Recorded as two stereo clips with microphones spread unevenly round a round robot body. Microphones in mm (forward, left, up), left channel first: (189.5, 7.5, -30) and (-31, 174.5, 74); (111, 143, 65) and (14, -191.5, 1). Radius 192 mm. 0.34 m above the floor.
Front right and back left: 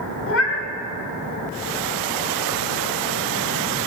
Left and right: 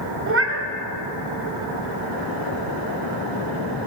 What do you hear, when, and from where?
0.3 s a cat meowing: 65° right, 1.0 m